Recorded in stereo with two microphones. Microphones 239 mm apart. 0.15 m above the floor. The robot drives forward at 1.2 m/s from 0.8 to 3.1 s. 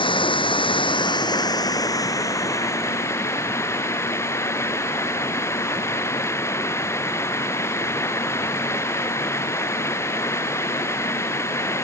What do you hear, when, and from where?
0.0 s running water: 20° left (ahead or behind); by 11.8 s 10° left (ahead or behind)